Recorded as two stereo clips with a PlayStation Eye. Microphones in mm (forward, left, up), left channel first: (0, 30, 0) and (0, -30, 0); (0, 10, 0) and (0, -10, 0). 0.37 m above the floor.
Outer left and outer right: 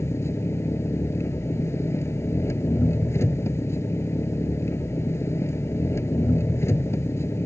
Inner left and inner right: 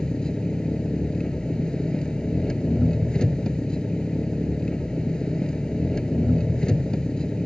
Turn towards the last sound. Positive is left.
turn(degrees=45)  # may be behind; listen again after turning